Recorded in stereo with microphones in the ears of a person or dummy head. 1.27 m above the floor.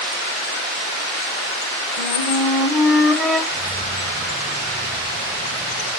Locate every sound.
2.0 s a flute: centre (ahead or behind), 2.0 m
3.5 s keys jangling: 25° right (ahead or behind), 2 m